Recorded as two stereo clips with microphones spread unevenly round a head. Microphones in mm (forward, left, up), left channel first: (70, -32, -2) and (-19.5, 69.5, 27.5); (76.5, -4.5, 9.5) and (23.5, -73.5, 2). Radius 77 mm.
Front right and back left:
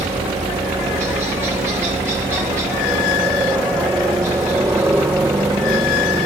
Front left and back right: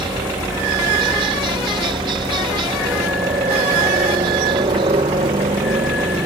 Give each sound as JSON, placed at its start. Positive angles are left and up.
{"t": 0.0, "sound": "a helicopter", "azimuth_deg": -150}